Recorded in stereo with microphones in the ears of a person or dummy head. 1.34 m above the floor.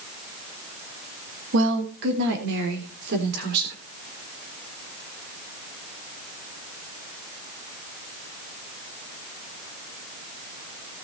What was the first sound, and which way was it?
A woman speaking, 70° right (ahead or behind).